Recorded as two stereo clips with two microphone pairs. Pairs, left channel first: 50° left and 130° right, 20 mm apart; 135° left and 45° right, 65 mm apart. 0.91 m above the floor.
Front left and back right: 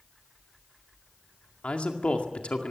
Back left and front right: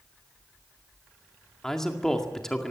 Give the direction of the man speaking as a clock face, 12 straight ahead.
10 o'clock.